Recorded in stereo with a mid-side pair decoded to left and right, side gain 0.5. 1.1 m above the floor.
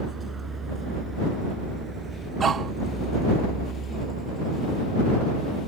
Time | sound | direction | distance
0.0 | a vehicle | 30° right | ?
2.4 | a dog barking | 40° right | ?